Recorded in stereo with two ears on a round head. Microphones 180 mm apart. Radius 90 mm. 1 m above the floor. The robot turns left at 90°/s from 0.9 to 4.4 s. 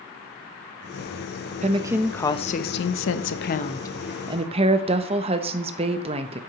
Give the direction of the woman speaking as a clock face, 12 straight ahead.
5 o'clock.